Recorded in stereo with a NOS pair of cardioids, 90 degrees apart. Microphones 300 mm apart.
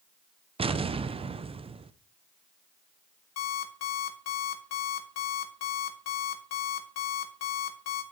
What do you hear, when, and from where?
0.6 s an explosion: 20° right, 0.5 m
3.4 s an alarm clock: 60° left, 1.8 m